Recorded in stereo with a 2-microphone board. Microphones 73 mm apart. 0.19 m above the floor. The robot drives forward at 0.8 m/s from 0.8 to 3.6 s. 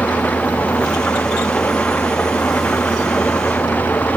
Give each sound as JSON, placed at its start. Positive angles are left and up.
{"t": 0.0, "sound": "an engine running", "side_deg": 20}